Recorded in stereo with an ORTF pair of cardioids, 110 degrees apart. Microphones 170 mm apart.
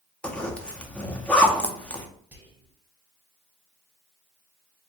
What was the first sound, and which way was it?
A zipper, 5° left.